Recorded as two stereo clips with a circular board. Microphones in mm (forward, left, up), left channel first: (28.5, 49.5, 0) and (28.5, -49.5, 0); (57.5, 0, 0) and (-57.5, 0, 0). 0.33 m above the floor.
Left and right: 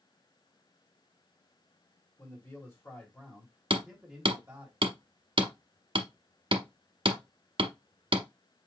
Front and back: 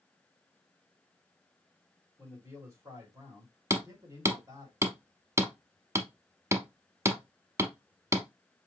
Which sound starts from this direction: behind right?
Hammering, at 3.7 s.